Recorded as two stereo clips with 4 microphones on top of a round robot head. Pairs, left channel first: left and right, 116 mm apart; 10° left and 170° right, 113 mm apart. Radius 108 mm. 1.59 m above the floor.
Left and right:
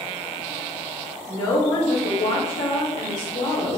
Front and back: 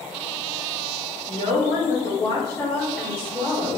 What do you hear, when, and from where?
1.3 s a woman speaking: 25° left, 1.1 m; by 3.8 s 125° left, 1.4 m